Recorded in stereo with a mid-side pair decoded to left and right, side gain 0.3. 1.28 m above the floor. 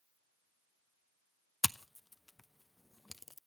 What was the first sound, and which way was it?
Scissors, 20° left.